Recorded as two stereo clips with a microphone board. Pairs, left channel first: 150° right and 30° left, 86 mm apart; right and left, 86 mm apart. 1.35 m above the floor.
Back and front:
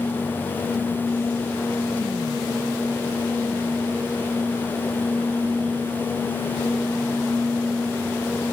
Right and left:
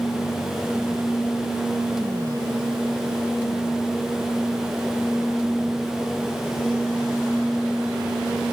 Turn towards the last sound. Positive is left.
No sound to turn to.